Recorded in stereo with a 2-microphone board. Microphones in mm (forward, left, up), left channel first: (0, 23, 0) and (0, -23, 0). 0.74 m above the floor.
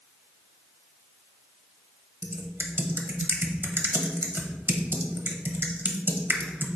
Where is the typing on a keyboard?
55° right (ahead or behind), 0.9 m.